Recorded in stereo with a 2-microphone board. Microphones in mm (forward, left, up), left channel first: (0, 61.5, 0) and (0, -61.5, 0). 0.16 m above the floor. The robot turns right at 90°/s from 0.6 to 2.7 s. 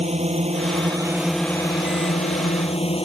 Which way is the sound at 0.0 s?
65° right.